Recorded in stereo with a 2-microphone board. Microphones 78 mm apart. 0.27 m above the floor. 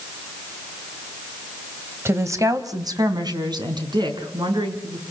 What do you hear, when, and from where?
2.0 s a woman speaking: 30° right (ahead or behind), 1.5 m; by 5.0 s 75° right (ahead or behind), 4.5 m